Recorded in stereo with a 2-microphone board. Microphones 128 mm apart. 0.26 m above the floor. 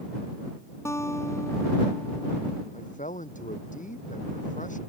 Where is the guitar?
20° left (ahead or behind).